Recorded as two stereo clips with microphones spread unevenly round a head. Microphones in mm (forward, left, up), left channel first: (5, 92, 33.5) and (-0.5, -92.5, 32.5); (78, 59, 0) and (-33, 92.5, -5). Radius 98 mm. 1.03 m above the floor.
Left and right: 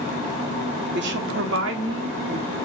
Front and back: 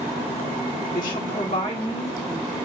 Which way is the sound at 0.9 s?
60° right.